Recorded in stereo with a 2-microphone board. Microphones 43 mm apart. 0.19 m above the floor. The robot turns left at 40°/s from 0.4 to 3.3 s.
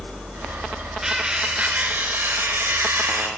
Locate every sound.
1.0 s cutlery clinking: 10° right, 1.8 m; by 3.3 s 100° right, 1.8 m